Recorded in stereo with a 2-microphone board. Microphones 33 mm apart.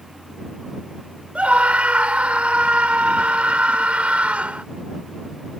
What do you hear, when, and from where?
1.4 s a scream: 45° right (ahead or behind)